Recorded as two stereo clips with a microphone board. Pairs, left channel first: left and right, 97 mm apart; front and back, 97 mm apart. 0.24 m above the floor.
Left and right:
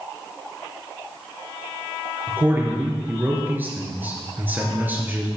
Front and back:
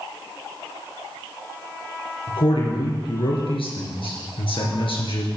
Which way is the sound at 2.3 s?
20° right.